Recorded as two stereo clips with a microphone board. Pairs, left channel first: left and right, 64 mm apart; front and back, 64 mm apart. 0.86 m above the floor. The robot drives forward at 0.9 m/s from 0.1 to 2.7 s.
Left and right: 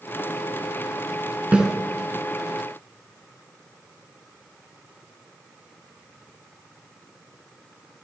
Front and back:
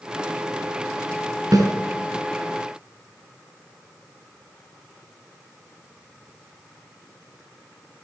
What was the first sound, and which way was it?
A snare drum, 165° right.